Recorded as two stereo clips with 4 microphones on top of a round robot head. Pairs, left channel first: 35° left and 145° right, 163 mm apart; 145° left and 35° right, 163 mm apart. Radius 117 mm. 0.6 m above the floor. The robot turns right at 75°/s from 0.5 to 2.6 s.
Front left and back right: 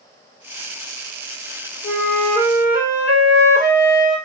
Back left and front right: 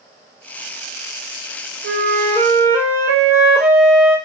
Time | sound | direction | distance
1.8 | a flute | 20° right | 2.0 m